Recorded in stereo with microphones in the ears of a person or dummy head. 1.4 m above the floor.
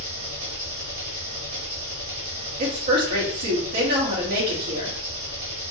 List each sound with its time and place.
0.0 s an engine running: 80° right, 2.5 m
2.6 s a woman speaking: 60° right (ahead or behind), 2.5 m